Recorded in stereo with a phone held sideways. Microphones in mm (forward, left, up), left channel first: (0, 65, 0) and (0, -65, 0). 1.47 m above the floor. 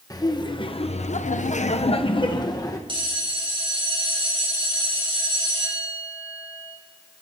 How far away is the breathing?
No breathing in this recording.